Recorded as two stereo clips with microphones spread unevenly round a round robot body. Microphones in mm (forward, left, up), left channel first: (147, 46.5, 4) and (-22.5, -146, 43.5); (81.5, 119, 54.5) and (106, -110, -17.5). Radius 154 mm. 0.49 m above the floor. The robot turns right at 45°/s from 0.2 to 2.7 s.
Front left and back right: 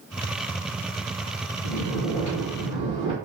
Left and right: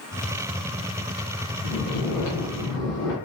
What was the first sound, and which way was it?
Snoring, 105° left.